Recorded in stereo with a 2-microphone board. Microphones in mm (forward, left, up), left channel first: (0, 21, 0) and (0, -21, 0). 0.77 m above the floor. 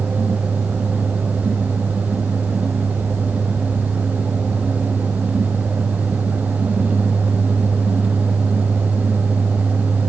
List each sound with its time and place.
Only background noise.